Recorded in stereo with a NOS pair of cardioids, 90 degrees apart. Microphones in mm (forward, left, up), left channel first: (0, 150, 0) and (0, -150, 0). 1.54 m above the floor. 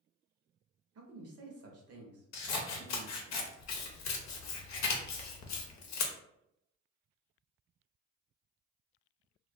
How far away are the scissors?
About 0.7 m.